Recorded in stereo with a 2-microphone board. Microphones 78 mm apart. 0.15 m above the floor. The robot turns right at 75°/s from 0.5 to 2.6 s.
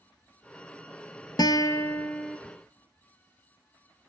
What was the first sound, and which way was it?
A guitar, 110° left.